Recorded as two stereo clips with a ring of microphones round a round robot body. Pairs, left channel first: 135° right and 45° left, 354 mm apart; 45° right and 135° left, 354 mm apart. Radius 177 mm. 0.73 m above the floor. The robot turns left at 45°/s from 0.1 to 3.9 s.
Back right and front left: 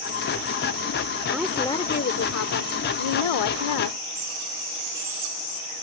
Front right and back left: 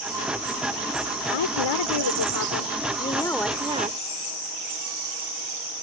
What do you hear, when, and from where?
1.3 s a woman speaking: 40° right; by 4.0 s 155° right